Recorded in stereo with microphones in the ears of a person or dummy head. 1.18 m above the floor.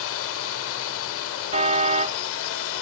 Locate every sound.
0.0 s a drone: 70° left (ahead or behind)
1.5 s a car horn: 45° right (ahead or behind)